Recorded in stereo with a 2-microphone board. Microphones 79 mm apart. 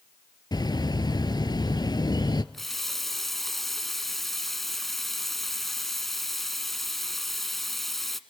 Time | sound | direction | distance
0.5 | a bird | 60° left (ahead or behind) | 0.8 m
2.5 | a running tap | centre (ahead or behind) | 0.9 m